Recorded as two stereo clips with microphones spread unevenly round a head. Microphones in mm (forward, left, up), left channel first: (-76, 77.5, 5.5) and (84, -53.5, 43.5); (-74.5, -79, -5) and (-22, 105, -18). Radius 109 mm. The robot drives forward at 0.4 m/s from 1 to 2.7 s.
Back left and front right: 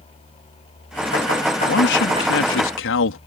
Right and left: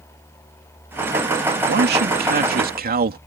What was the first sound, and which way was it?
A man speaking, 105° left.